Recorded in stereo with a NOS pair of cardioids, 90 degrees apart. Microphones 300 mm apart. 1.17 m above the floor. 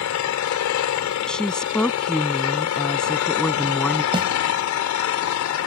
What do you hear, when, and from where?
0.0 s an engine running: 70° left
1.3 s a woman speaking: 5° left
4.1 s a snare drum: 15° right